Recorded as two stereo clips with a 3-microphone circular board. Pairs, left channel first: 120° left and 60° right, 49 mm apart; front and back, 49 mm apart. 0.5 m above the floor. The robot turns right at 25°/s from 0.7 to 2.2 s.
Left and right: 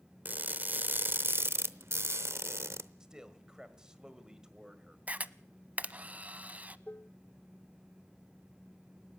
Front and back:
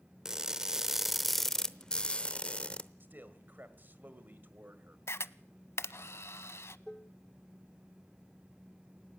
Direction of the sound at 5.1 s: 5° right.